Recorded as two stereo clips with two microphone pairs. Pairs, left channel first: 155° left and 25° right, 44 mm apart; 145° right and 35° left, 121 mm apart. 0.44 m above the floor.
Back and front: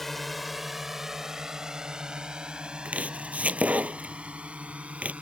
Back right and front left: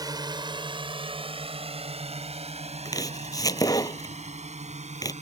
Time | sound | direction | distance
0.0 | a drone | 70° left | ?
2.9 | chopping | 85° right | ?